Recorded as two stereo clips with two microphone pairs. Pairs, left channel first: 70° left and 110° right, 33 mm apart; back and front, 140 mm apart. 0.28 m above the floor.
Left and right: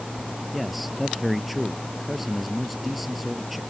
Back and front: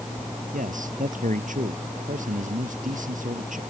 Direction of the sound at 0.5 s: 20° right.